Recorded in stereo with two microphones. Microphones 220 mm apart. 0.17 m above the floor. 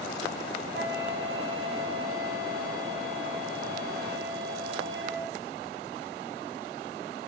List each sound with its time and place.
0.7 s a flute: 60° right (ahead or behind), 4.5 m